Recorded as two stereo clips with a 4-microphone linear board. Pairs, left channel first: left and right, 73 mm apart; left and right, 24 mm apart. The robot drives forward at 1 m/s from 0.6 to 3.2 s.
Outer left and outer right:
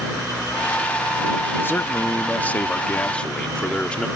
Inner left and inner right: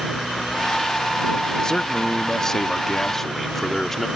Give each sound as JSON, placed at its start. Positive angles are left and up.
{"t": 1.6, "sound": "a man speaking", "side_deg": 30}